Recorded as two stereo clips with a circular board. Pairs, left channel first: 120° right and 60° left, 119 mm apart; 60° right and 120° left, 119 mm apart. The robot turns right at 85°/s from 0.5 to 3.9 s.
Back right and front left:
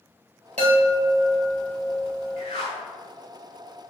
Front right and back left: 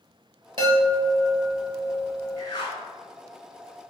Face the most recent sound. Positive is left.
turn(degrees=10)